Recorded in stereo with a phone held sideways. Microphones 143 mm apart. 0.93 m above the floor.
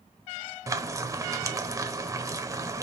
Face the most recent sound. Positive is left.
turn(degrees=-25)  # may be behind; listen again after turning